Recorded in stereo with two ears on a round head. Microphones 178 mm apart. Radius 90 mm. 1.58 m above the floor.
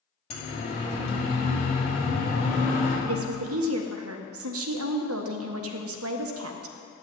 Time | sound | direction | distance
0.3 | a siren | 30° left (ahead or behind) | 5 m
3.0 | a woman speaking | 85° right | 1.4 m